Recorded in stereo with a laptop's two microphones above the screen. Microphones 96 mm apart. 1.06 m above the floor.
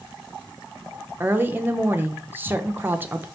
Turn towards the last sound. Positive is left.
turn(degrees=-20)  # may be behind; listen again after turning